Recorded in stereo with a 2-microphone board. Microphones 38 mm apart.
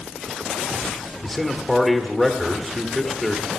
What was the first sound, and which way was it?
A man speaking, centre (ahead or behind).